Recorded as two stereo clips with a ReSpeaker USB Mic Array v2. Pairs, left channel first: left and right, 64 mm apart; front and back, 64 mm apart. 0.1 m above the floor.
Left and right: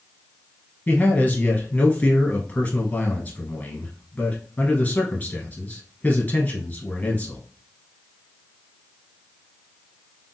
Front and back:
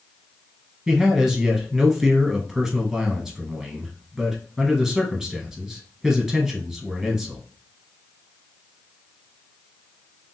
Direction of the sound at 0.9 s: 105° left.